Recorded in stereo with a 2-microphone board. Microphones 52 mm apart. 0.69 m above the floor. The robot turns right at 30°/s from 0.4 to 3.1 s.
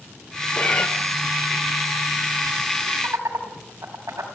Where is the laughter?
80° right, 4.5 m.